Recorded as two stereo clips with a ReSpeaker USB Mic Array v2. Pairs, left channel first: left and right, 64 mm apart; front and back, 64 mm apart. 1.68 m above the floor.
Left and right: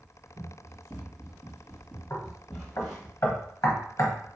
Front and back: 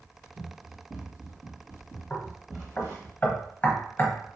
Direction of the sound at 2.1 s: 60° left.